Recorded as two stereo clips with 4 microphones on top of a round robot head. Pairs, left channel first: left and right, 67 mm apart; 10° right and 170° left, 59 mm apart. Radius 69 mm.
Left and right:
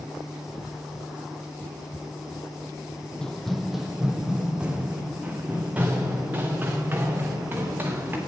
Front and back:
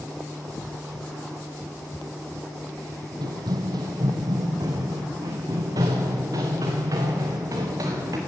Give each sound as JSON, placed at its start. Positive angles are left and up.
{"t": 3.2, "sound": "running footsteps", "azimuth_deg": 170, "distance_m": 1.0}